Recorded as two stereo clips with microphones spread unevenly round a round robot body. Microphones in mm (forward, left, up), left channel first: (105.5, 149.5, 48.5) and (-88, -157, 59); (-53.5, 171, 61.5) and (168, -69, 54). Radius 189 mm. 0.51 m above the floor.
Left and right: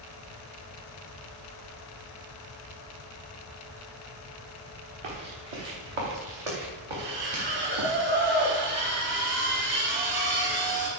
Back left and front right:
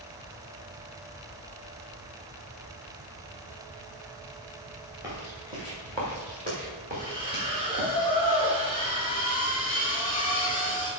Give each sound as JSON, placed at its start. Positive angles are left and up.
{"t": 5.0, "sound": "footsteps", "azimuth_deg": -130, "distance_m": 5.0}
{"t": 6.9, "sound": "a splash", "azimuth_deg": -150, "distance_m": 4.5}